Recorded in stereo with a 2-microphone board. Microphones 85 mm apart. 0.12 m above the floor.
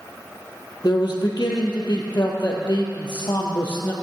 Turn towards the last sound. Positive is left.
turn(degrees=60)  # may be behind; listen again after turning